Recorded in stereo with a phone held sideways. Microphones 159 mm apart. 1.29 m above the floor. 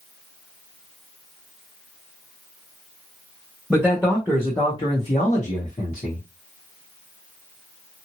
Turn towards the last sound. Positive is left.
turn(degrees=70)  # may be behind; listen again after turning